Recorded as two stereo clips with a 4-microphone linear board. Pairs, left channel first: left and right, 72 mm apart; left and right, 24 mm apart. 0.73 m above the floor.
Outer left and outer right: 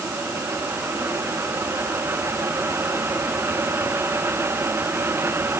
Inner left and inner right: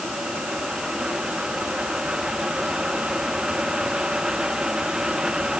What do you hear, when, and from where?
Only background noise.